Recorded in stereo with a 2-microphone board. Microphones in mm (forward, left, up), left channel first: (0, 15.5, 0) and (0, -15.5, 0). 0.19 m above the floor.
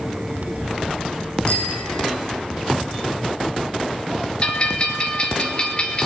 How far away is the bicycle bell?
About 7 m.